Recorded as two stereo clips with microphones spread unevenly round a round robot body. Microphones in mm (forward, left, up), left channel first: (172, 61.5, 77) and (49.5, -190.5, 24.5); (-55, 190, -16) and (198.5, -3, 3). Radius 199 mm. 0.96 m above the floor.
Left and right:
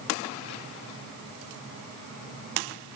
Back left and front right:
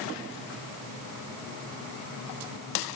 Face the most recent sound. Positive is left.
No sound to turn to.